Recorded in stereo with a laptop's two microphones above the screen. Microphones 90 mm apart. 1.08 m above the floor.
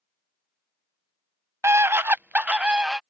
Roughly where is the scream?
Right.